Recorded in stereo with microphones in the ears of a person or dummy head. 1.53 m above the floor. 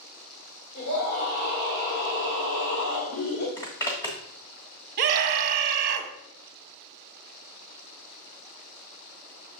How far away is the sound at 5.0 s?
About 1.1 m.